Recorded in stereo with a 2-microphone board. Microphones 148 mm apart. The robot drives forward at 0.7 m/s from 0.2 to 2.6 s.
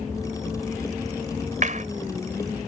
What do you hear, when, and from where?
1.6 s a clap: 60° right (ahead or behind); by 1.9 s 55° right (ahead or behind)